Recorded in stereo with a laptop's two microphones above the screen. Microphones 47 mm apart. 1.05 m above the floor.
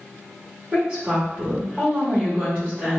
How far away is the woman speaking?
About 1.9 m.